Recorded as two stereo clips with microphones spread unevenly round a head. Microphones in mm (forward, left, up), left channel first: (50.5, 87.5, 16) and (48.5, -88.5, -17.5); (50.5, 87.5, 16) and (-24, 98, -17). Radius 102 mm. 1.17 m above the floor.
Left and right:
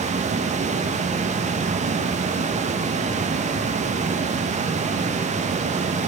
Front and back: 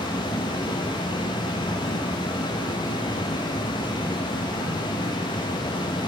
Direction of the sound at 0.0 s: 35° right.